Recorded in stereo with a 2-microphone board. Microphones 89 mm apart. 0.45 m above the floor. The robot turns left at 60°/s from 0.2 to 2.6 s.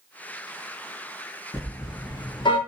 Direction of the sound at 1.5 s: 30° left (ahead or behind).